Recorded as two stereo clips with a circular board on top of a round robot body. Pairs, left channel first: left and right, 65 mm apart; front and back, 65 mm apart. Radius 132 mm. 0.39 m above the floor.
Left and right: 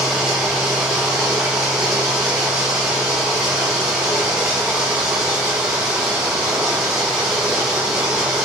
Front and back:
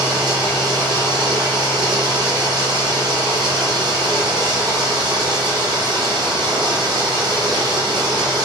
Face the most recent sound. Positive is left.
turn(degrees=-175)